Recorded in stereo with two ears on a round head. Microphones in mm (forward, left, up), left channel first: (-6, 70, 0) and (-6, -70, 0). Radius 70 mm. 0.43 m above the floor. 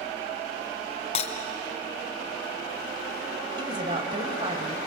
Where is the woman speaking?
35° right (ahead or behind), 2.5 m.